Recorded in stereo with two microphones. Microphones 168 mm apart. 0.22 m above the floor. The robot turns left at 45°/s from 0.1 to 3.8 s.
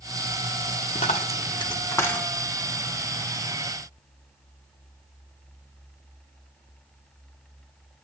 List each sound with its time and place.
0.9 s a dropped coin: 50° left (ahead or behind), 1.0 m; by 2.3 s 5° left (ahead or behind), 1.0 m